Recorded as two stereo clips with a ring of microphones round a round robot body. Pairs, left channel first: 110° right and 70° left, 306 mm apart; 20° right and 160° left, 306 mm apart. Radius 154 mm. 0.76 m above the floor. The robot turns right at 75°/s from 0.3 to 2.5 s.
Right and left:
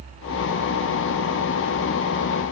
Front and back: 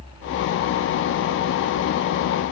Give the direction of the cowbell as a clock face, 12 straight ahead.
I don't hear a cowbell.